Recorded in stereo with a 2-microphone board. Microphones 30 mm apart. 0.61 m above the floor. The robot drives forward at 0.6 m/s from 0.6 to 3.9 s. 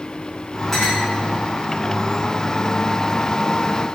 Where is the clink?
5° left (ahead or behind), 5 m.